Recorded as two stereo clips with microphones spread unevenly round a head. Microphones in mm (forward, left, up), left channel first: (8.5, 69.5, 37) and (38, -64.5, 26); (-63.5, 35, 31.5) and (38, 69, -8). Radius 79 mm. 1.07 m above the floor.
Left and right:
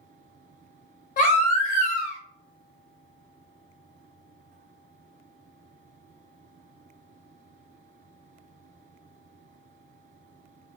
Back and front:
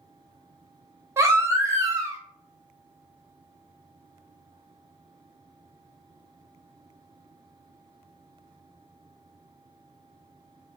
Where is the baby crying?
75° left, 0.7 m.